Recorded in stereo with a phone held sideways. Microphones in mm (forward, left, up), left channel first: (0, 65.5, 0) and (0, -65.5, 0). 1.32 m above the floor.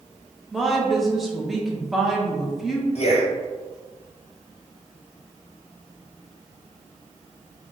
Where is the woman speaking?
Centre (ahead or behind), 0.7 m.